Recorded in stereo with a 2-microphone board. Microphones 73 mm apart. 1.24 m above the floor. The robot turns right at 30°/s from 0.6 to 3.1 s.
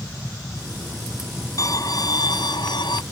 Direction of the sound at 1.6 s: 50° left.